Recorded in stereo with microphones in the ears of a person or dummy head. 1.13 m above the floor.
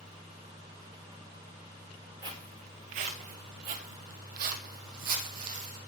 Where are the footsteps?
20° right (ahead or behind), 1.2 m; by 5.8 s 50° right (ahead or behind), 3 m.